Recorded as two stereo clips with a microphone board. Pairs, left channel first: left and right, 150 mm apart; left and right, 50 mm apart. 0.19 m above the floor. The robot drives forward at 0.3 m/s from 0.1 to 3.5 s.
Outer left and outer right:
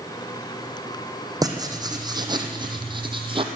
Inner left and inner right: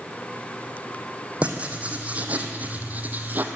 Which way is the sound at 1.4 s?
25° right (ahead or behind).